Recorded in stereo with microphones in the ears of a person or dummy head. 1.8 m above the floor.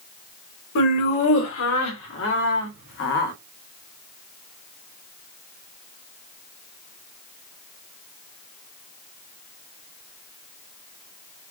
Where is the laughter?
80° left, 2.5 m; by 3.3 s 65° left (ahead or behind), 1.4 m.